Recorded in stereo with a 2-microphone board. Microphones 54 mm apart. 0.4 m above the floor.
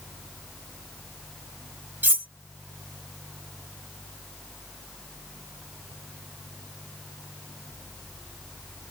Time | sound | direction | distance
2.0 | cutlery clinking | 40° right (ahead or behind) | 1.2 m